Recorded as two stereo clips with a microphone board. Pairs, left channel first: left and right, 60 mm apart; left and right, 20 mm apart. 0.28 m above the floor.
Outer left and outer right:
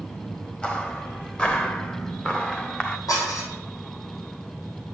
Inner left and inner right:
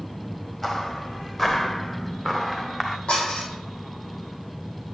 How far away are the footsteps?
About 3 m.